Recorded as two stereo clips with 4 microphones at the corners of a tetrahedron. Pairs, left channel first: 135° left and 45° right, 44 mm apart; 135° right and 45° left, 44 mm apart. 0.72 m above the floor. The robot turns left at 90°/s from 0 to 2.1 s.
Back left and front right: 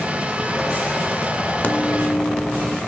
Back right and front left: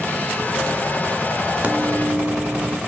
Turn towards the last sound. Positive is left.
turn(degrees=55)